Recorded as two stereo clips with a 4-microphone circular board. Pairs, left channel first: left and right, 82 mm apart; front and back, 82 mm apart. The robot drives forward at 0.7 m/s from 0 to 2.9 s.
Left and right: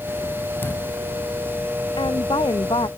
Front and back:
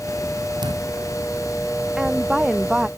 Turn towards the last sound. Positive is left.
turn(degrees=100)